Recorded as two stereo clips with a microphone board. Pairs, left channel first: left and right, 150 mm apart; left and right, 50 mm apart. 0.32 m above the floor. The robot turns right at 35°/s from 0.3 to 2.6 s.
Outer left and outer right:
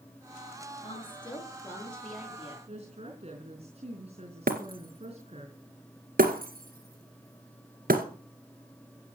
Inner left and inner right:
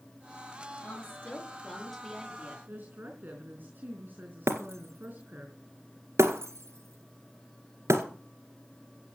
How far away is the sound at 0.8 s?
About 7.5 m.